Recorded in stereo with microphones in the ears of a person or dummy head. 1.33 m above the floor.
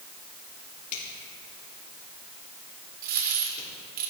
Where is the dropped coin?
45° right (ahead or behind), 1.2 m.